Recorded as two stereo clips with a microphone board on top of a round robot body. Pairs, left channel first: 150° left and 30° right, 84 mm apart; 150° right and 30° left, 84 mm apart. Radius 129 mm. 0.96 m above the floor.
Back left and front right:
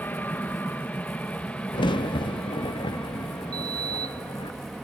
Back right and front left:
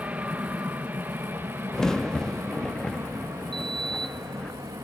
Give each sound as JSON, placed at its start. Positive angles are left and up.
{"t": 0.0, "sound": "an aircraft", "azimuth_deg": 95}
{"t": 1.7, "sound": "a crack", "azimuth_deg": 130}
{"t": 3.5, "sound": "a sliding door", "azimuth_deg": 15}